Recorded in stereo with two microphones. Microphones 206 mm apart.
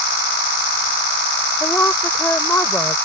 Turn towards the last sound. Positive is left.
turn(degrees=10)  # may be behind; listen again after turning